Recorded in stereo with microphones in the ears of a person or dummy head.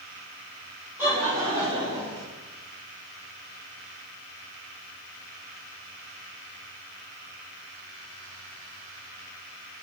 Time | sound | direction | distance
1.0 | laughter | 15° right (ahead or behind) | 3.5 m